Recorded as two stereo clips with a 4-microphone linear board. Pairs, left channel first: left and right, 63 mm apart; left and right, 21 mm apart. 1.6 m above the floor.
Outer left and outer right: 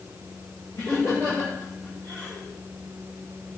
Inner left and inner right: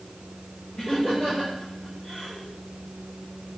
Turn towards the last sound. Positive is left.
turn(degrees=65)  # may be behind; listen again after turning